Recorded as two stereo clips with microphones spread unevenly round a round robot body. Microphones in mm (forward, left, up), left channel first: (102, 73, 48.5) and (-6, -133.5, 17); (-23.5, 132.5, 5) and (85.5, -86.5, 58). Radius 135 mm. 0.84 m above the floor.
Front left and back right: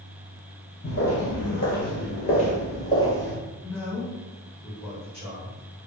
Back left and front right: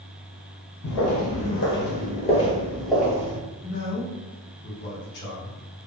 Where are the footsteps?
100° left, 1.5 m; by 3.4 s 10° right, 1.2 m.